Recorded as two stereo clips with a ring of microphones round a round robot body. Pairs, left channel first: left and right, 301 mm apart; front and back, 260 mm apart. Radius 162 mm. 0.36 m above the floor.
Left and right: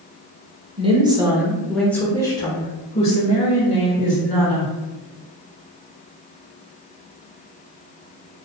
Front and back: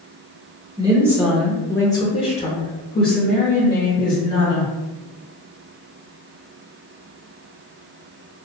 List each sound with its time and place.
0.8 s a woman speaking: 130° right, 1.0 m; by 4.7 s 35° left, 1.9 m